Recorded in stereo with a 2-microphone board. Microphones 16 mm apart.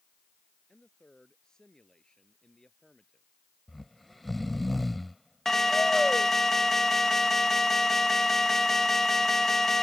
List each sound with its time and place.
0.7 s a man speaking: 45° left (ahead or behind)
3.7 s snoring: centre (ahead or behind)
5.5 s an alarm: 25° left (ahead or behind)